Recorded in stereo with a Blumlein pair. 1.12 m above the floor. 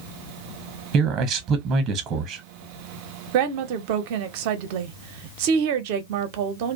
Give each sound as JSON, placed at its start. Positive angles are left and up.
{"t": 0.9, "sound": "a man speaking", "azimuth_deg": -30, "distance_m": 0.8}
{"t": 3.3, "sound": "a woman speaking", "azimuth_deg": -45, "distance_m": 0.6}